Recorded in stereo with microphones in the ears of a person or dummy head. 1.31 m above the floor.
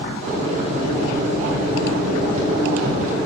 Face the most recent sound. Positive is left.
turn(degrees=-40)  # may be behind; listen again after turning